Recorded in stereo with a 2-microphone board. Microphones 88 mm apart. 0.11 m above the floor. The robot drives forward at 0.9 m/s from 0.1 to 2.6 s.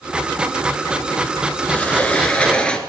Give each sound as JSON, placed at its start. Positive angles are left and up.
{"t": 1.7, "sound": "a sliding door", "side_deg": 15, "distance_m": 1.4}